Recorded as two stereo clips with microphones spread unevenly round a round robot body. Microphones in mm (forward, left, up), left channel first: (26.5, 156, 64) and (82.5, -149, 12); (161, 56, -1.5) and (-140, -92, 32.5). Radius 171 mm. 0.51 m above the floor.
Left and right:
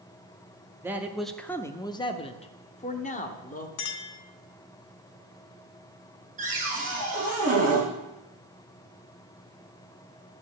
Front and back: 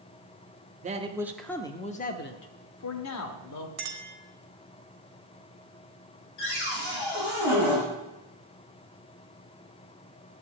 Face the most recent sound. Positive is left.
turn(degrees=-15)